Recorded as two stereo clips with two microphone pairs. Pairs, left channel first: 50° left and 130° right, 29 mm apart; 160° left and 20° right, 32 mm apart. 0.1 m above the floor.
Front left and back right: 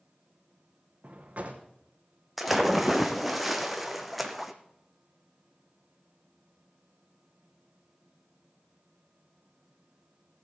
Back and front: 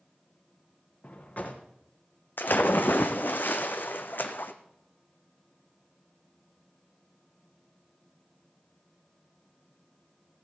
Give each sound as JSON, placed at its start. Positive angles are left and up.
{"t": 1.0, "sound": "a drawer", "azimuth_deg": -165, "distance_m": 2.0}
{"t": 2.4, "sound": "a splash", "azimuth_deg": 145, "distance_m": 1.1}